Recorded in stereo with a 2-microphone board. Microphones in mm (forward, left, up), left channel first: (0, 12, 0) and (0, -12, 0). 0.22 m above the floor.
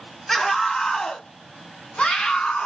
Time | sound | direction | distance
0.3 | a scream | 15° left (ahead or behind) | 1.3 m